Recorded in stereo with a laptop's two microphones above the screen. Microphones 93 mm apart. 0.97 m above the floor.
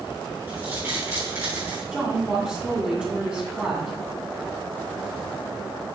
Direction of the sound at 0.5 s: 25° right (ahead or behind).